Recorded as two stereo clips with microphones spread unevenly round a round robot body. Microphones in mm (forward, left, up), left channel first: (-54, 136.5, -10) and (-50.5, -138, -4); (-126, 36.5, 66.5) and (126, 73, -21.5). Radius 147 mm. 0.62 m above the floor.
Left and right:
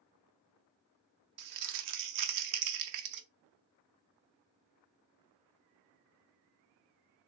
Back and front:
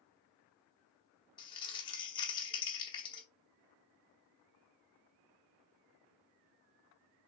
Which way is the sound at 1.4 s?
90° right.